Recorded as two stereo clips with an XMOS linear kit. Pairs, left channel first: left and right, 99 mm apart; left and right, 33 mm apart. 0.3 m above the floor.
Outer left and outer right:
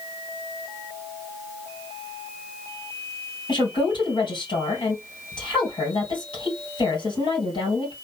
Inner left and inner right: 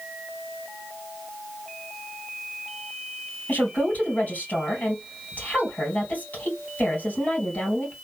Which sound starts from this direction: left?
A woman speaking, at 3.5 s.